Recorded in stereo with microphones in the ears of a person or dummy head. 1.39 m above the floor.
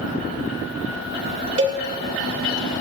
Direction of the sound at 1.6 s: 25° right (ahead or behind).